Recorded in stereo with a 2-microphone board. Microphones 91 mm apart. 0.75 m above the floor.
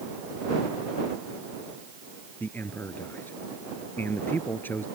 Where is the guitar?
I don't hear a guitar.